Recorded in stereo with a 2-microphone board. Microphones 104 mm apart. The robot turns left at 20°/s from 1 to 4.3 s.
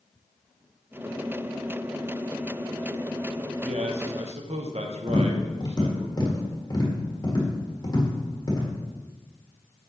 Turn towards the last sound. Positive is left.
turn(degrees=40)  # may be behind; listen again after turning